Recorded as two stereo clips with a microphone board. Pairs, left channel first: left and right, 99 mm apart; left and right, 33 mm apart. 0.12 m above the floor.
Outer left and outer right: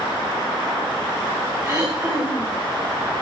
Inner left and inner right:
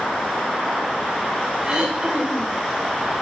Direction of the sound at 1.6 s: 20° right (ahead or behind).